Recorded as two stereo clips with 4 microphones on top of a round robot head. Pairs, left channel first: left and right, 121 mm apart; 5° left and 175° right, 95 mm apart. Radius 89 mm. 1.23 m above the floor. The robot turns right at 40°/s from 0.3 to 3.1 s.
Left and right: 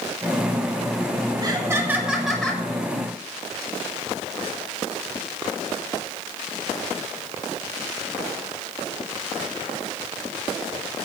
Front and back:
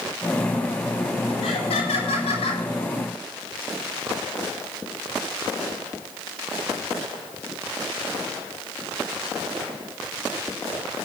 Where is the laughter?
35° right, 7 m; by 2.6 s 15° left, 7 m.